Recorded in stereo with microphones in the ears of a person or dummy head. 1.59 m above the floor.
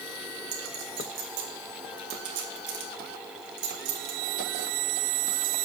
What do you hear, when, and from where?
0.5 s a clink: 70° right (ahead or behind), 1.8 m